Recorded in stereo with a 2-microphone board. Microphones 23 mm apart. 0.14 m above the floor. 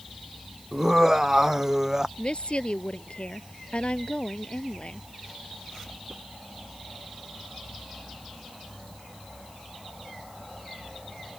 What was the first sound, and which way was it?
Laughter, 25° right (ahead or behind).